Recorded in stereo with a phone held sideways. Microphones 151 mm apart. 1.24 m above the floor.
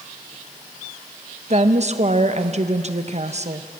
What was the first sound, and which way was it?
A woman speaking, 45° right (ahead or behind).